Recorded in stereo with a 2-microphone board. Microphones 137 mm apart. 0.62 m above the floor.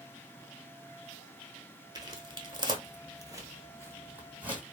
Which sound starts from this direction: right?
Footsteps, at 1.9 s.